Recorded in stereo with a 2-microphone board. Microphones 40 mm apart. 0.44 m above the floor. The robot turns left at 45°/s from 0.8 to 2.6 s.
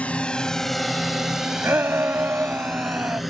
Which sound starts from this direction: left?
A drone, at 0.0 s.